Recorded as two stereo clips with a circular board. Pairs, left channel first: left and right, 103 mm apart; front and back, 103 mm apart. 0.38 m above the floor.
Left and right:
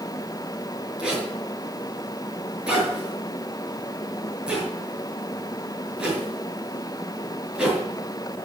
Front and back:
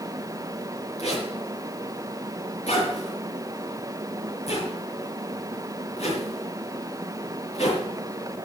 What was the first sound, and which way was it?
A zipper, 10° right.